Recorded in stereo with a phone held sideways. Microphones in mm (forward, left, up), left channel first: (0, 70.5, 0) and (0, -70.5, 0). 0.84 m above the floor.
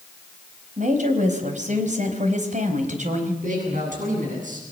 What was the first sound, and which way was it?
A woman speaking, 60° right (ahead or behind).